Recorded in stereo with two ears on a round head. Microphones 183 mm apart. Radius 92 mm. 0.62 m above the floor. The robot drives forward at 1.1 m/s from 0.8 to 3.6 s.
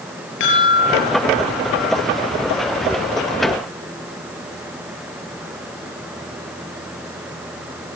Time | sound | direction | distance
0.4 | a chime | 65° left (ahead or behind) | 8 m